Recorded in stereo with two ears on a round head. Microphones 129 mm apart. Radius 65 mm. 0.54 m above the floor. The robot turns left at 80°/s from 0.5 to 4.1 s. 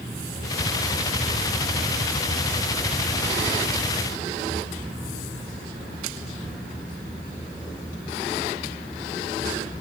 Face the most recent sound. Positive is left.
No sound to turn to.